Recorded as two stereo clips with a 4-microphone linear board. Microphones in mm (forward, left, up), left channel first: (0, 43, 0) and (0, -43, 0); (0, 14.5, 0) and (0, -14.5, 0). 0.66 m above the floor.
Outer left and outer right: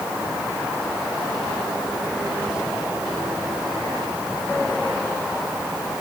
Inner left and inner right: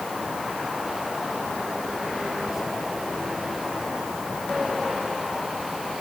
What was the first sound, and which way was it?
Only background noise.